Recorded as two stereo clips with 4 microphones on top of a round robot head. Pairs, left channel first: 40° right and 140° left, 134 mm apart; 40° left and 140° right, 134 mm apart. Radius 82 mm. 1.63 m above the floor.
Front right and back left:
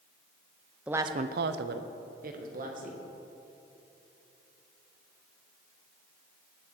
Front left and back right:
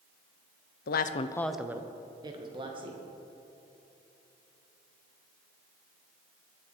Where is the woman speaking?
55° left, 0.6 m; by 3.0 s 170° left, 2.5 m.